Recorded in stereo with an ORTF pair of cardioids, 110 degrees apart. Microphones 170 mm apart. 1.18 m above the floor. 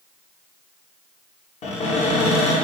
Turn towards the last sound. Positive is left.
turn(degrees=40)